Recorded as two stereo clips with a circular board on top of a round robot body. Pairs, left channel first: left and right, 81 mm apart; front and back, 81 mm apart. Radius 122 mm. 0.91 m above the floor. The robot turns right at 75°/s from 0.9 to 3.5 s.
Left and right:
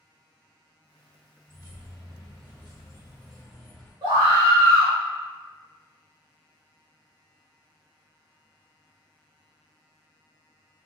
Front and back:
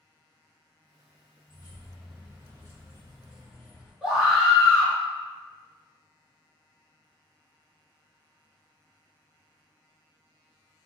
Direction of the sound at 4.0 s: 100° right.